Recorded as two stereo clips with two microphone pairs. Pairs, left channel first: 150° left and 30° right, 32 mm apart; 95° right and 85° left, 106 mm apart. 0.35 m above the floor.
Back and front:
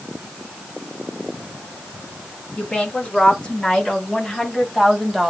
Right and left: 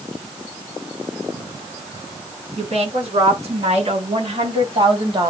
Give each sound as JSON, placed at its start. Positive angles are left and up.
{"t": 2.6, "sound": "a woman speaking", "azimuth_deg": 95, "distance_m": 4.5}